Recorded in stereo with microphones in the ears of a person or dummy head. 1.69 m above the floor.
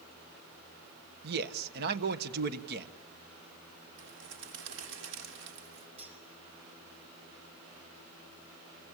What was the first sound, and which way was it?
A man speaking, 65° right (ahead or behind).